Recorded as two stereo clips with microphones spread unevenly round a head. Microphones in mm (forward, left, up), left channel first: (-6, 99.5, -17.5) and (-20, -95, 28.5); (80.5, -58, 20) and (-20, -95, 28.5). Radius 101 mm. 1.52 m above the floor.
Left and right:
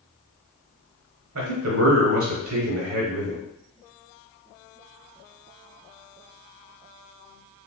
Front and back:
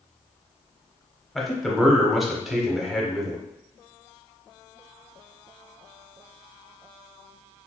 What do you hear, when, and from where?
1.4 s a man speaking: 70° right, 0.9 m